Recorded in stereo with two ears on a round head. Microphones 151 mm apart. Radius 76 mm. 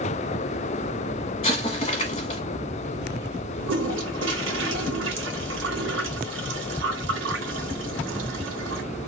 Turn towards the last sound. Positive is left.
turn(degrees=-80)